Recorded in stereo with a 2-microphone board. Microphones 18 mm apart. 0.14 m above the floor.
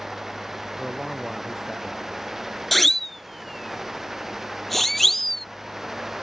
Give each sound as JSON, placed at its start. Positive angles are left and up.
{"t": 0.8, "sound": "a man speaking", "side_deg": 0}
{"t": 2.7, "sound": "a siren", "side_deg": 10}